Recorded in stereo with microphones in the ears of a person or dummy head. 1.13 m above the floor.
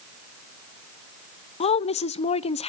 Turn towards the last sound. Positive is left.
turn(degrees=35)  # may be behind; listen again after turning